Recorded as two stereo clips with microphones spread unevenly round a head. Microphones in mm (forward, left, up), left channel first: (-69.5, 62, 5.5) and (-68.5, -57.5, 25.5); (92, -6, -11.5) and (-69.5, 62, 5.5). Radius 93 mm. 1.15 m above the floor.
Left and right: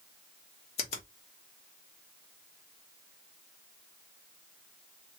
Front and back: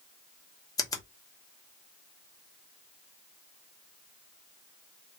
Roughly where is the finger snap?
Ahead left.